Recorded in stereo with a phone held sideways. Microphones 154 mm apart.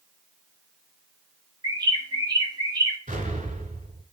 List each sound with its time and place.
1.6 s a bird: 25° right (ahead or behind), 1.2 m
3.1 s an explosion: 50° right (ahead or behind), 2 m